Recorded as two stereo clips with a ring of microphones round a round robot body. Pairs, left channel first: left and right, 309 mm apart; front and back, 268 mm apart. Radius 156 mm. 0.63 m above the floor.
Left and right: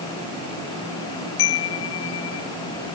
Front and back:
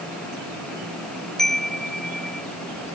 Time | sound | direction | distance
1.4 | a chime | 90° left | ?